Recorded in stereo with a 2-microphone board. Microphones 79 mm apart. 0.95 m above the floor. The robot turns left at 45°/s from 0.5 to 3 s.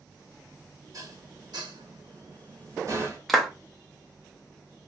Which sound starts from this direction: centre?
A clap, at 3.3 s.